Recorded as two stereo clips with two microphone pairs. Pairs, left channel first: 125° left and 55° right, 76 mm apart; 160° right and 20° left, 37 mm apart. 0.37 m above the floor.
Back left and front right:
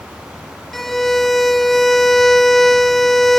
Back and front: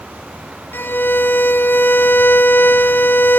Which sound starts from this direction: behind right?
A violin, at 0.7 s.